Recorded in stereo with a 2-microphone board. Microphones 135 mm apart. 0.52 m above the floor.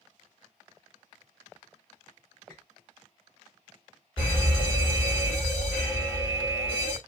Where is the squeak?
10° left (ahead or behind), 2 m.